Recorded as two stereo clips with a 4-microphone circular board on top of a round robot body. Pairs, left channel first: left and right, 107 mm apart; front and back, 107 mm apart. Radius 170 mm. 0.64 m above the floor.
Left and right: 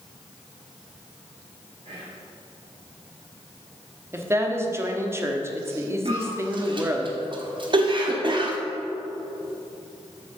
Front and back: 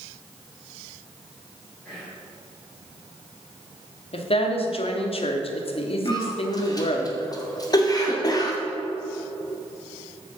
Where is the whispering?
80° right, 3 m.